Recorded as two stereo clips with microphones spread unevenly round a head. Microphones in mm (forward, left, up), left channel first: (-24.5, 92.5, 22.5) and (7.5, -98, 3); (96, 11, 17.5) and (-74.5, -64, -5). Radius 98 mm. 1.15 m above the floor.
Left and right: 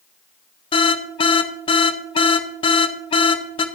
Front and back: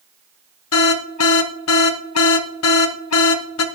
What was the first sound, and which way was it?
An alarm, 35° left.